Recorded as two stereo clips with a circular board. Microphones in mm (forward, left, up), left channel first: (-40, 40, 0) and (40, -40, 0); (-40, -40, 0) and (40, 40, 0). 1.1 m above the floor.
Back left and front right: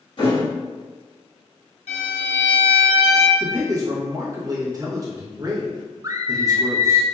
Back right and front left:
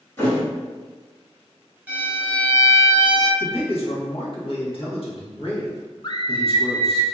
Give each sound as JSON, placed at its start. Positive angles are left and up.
{"t": 0.2, "sound": "a thud", "azimuth_deg": 160, "distance_m": 2.0}
{"t": 1.9, "sound": "a violin", "azimuth_deg": 120, "distance_m": 1.0}
{"t": 3.4, "sound": "a man speaking", "azimuth_deg": -100, "distance_m": 1.2}
{"t": 6.0, "sound": "a scream", "azimuth_deg": -95, "distance_m": 0.5}